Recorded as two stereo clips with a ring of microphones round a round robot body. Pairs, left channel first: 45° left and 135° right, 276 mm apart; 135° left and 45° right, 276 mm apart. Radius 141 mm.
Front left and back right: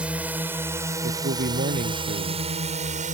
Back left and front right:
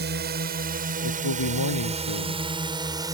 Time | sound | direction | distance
0.0 | a drone | 50° right | ?
1.0 | a man speaking | 165° left | ?